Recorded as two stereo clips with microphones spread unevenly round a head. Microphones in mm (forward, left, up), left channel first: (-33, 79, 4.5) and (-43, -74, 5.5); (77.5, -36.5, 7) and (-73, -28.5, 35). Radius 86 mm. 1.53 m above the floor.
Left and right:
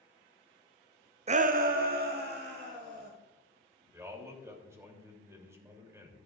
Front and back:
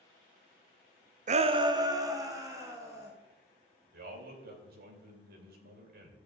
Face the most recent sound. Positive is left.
turn(degrees=-165)